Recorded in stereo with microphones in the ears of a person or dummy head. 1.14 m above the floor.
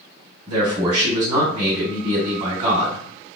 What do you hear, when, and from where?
0.5 s a man speaking: 30° right (ahead or behind), 1.9 m